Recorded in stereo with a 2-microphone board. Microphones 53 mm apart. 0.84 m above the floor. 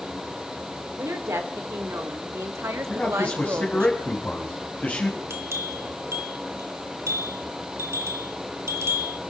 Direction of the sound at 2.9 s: 30° left (ahead or behind).